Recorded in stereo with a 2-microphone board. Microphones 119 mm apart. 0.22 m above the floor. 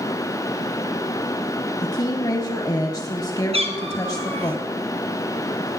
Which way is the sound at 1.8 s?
35° left (ahead or behind).